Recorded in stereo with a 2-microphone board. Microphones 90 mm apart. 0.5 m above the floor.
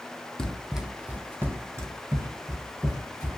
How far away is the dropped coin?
No dropped coin in this recording.